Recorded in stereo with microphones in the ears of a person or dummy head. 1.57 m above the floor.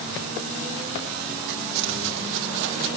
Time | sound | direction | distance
1.5 | footsteps | 65° right (ahead or behind) | 3.5 m